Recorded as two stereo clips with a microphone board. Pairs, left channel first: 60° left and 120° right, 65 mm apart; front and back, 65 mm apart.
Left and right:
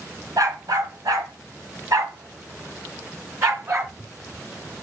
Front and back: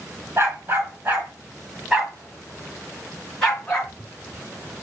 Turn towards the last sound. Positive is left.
turn(degrees=-80)